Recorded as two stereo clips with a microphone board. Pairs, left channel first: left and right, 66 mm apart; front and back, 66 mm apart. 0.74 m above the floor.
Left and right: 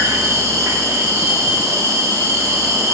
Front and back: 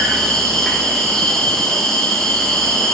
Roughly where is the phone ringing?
I don't hear a phone ringing.